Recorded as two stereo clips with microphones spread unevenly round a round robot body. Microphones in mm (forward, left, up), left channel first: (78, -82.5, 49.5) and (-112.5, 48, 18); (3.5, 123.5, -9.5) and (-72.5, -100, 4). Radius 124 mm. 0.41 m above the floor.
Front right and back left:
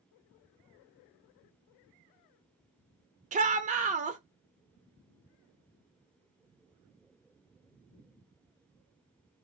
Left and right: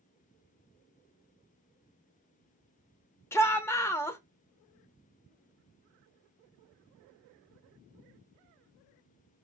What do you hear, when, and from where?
3.3 s a shout: 140° left, 1.0 m